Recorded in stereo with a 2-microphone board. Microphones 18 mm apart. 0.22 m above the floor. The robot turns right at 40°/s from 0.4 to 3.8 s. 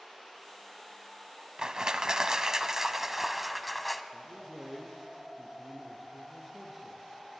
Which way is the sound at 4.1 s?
Centre (ahead or behind).